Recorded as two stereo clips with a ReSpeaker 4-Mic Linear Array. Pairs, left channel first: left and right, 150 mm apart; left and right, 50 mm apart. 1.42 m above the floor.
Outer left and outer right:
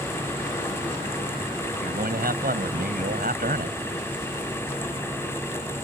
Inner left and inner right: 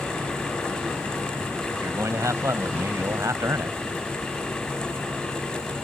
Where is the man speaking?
90° right.